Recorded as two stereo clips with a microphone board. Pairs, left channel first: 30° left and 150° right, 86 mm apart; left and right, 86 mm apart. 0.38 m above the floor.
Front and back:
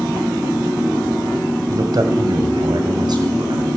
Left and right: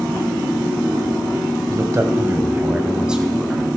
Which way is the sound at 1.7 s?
125° right.